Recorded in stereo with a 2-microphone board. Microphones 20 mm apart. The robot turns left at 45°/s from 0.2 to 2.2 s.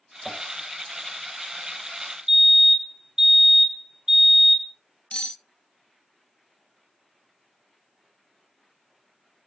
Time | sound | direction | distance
0.2 | tapping | 15° right (ahead or behind) | 4.5 m
2.3 | a fire alarm | 35° right (ahead or behind) | 2 m
5.1 | cutlery clinking | 80° left | 0.5 m